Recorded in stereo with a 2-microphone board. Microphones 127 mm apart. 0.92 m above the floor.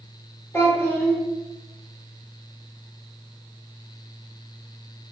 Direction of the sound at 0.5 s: 20° left (ahead or behind).